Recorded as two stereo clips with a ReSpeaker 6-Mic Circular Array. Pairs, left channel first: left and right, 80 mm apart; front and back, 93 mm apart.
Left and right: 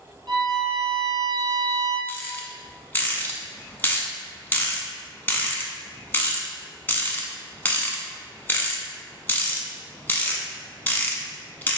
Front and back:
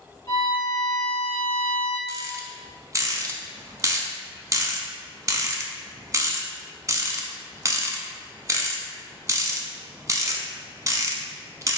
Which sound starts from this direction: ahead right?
A violin, at 0.3 s.